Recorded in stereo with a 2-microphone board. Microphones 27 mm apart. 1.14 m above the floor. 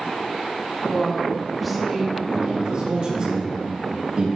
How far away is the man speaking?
About 2 m.